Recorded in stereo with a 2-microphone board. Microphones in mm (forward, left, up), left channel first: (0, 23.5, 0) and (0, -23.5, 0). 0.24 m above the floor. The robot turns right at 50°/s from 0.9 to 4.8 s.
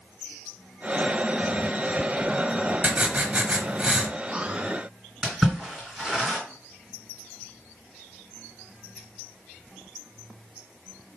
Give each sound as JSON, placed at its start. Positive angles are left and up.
{"t": 2.8, "sound": "writing", "side_deg": -25, "distance_m": 0.9}
{"t": 5.2, "sound": "a splash", "side_deg": -5, "distance_m": 3.0}